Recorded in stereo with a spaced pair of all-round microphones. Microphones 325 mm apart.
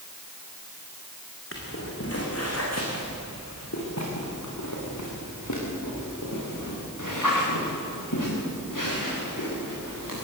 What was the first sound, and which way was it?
Footsteps, 40° left (ahead or behind).